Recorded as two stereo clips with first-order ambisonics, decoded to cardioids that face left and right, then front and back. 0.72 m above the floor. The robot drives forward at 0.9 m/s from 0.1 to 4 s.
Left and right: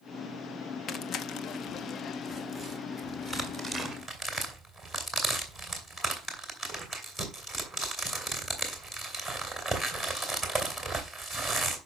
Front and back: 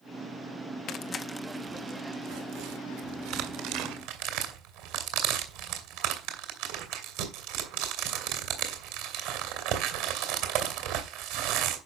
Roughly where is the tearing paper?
Ahead left.